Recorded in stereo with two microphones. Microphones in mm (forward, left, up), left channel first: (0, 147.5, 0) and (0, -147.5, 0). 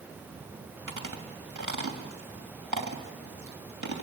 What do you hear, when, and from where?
0.9 s chewing: 80° right, 3 m